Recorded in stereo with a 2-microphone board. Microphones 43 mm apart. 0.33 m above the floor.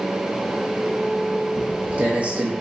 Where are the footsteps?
30° right (ahead or behind), 1.0 m.